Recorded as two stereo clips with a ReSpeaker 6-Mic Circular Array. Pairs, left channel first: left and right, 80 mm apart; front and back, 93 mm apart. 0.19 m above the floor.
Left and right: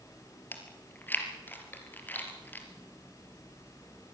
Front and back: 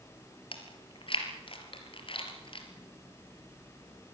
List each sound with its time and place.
0.5 s chewing: 25° left, 3.5 m